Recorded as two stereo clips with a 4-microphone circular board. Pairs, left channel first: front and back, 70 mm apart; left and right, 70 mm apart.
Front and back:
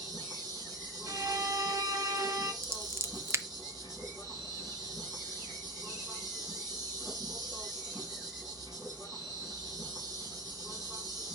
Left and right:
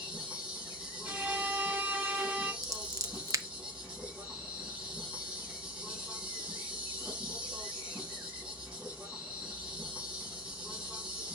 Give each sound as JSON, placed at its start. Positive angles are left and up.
{"t": 0.0, "sound": "an insect", "azimuth_deg": -155, "distance_m": 3.5}
{"t": 1.1, "sound": "a violin", "azimuth_deg": -150, "distance_m": 1.3}
{"t": 2.6, "sound": "scissors", "azimuth_deg": -130, "distance_m": 0.6}